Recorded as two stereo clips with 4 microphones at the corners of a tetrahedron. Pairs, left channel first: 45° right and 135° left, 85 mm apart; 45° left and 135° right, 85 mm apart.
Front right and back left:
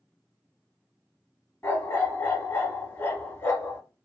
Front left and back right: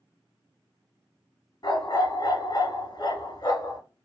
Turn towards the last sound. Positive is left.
turn(degrees=10)